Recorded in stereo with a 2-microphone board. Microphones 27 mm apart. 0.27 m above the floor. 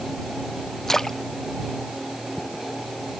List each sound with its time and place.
0.9 s a splash: 15° left (ahead or behind)